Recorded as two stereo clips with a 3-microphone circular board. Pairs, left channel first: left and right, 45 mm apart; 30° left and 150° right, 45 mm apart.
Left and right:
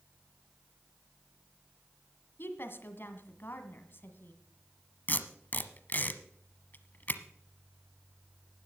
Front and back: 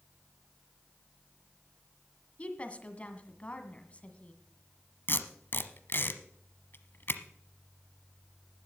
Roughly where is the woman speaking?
Left.